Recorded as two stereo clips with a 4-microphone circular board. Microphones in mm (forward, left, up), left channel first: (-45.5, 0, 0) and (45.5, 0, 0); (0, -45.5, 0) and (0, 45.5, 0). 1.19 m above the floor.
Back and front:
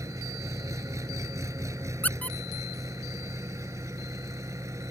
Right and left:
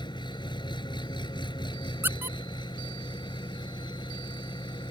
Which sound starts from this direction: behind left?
A squeak, at 2.0 s.